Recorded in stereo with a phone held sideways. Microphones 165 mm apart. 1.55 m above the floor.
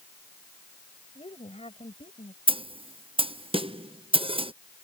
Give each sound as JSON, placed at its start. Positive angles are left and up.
{"t": 1.1, "sound": "a woman speaking", "side_deg": 35}
{"t": 2.5, "sound": "a snare drum", "side_deg": -30}